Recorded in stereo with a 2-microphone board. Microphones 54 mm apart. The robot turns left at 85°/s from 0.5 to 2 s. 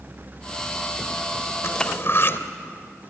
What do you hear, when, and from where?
1.6 s cutlery clinking: 90° left, 1.1 m; by 2.4 s 55° left, 1.1 m